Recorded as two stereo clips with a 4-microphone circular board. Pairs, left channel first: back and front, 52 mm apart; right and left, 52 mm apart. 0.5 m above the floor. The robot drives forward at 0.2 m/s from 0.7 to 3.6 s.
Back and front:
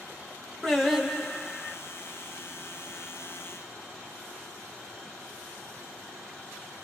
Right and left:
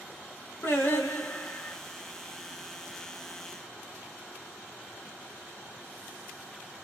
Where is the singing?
90° right, 0.9 m; by 1.8 s 110° right, 0.9 m.